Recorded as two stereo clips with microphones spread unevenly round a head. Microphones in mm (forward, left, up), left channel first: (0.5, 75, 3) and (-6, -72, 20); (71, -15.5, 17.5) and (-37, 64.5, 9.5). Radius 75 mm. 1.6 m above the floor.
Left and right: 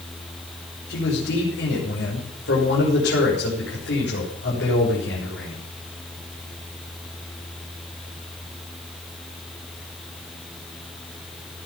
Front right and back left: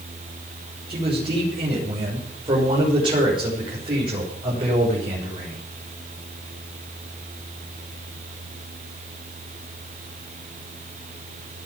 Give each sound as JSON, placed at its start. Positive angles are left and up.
{"t": 0.9, "sound": "a man speaking", "azimuth_deg": 90, "distance_m": 6.0}